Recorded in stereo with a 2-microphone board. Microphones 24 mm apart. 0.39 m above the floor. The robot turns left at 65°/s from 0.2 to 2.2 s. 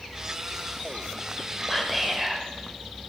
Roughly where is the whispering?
Ahead.